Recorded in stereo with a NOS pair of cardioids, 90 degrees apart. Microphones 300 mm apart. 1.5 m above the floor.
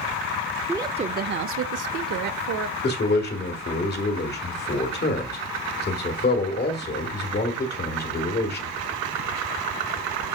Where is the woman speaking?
5° right, 0.5 m; by 2.7 s 75° right, 1.1 m.